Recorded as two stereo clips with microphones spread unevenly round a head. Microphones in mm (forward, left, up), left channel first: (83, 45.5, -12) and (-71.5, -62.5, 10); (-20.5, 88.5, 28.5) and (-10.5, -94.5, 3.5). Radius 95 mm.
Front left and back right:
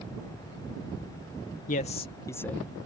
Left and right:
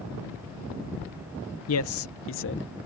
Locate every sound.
1.7 s a man speaking: 85° left; by 2.7 s 125° left